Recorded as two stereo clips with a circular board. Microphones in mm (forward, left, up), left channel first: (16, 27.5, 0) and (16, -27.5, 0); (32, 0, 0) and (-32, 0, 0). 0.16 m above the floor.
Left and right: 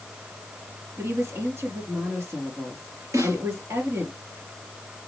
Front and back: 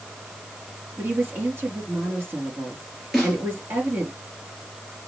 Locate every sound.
1.0 s a woman speaking: 125° right, 3 m
3.1 s a snare drum: 90° right, 3.5 m